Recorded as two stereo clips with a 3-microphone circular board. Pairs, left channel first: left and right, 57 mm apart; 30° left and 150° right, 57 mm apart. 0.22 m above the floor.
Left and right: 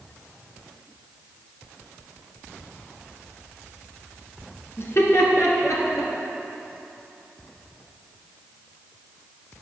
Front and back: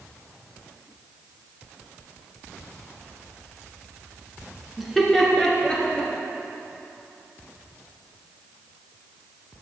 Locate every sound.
4.8 s laughter: 125° left, 2.5 m; by 6.1 s 100° left, 4 m